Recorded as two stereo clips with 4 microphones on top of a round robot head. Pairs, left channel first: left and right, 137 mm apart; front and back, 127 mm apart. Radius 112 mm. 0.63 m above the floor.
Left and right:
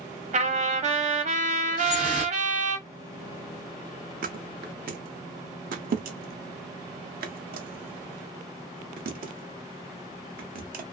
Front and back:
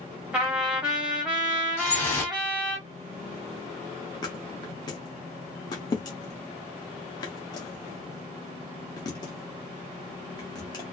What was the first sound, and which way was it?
A trumpet, 100° right.